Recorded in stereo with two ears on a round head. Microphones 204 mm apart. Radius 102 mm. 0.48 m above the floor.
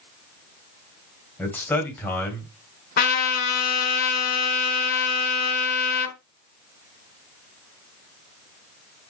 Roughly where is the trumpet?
Left.